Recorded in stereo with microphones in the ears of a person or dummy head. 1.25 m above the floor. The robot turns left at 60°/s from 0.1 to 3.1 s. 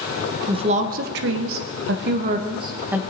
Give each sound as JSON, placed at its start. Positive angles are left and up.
{"t": 0.5, "sound": "a woman speaking", "azimuth_deg": -25, "distance_m": 0.8}